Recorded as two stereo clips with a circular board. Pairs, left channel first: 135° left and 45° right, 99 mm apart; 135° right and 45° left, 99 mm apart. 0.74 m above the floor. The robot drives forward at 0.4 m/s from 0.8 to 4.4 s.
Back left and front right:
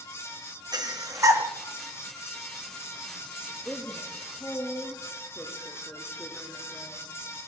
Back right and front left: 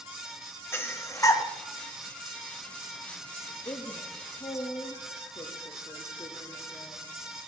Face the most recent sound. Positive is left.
turn(degrees=-160)